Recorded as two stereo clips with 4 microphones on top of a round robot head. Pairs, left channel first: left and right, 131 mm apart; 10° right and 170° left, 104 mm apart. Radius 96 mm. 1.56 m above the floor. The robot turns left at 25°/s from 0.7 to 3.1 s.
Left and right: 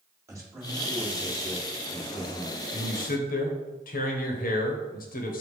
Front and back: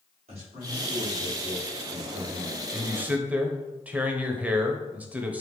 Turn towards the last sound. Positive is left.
turn(degrees=90)